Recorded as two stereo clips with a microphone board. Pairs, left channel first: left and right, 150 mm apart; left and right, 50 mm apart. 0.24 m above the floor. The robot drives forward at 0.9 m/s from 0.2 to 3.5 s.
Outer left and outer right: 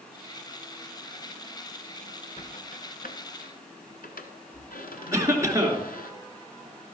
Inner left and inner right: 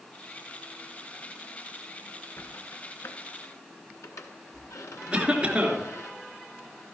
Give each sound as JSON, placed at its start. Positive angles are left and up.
{"t": 2.4, "sound": "a squeak", "side_deg": 50, "distance_m": 1.6}
{"t": 5.1, "sound": "a cough", "side_deg": -20, "distance_m": 3.0}